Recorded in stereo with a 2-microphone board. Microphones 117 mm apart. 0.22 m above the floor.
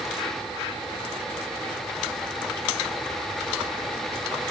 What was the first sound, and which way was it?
Only background noise.